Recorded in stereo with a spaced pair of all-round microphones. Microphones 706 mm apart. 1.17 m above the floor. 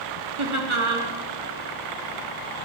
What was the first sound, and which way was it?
Laughter, 40° right (ahead or behind).